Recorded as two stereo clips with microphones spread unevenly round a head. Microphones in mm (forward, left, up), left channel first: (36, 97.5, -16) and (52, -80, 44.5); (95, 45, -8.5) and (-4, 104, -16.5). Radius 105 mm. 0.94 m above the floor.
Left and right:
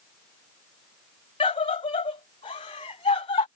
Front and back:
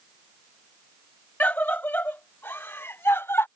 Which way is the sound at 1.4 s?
45° left.